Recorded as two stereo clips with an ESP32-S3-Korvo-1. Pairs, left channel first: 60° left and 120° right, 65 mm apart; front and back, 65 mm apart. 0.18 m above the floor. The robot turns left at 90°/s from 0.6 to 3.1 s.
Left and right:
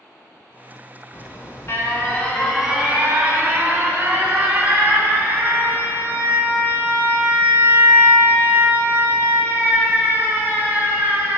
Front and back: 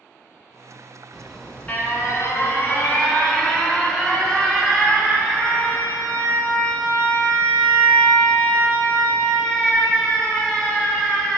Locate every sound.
1.1 s an alarm: 100° left, 1.2 m; by 11.4 s 75° right, 1.2 m